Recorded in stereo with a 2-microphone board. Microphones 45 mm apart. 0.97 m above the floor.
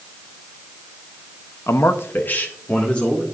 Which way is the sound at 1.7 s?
75° left (ahead or behind).